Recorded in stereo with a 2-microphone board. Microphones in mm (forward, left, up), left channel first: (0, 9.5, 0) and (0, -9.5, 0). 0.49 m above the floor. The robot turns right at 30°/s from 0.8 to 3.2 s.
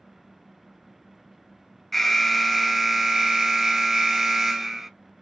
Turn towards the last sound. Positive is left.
turn(degrees=-155)